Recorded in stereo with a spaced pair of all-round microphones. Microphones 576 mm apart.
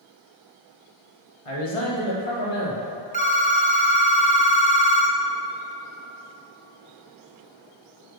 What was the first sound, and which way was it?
A man speaking, 75° left (ahead or behind).